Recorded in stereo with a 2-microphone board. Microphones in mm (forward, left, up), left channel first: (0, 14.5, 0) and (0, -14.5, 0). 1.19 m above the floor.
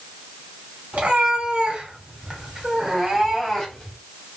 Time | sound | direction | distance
0.9 | a cat meowing | 50° right (ahead or behind) | 1.7 m